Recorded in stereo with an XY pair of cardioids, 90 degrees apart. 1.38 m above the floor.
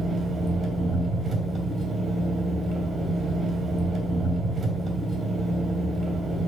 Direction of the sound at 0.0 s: 60° right.